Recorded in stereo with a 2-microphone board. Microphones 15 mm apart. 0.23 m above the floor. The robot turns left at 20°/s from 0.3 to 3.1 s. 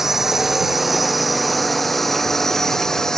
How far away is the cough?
No cough in this recording.